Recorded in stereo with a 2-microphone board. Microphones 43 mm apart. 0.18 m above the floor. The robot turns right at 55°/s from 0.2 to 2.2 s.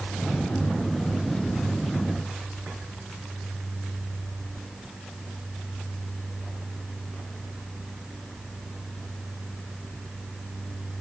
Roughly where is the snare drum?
No snare drum in this recording.